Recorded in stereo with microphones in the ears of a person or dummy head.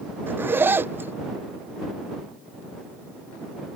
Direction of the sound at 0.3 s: 10° right (ahead or behind).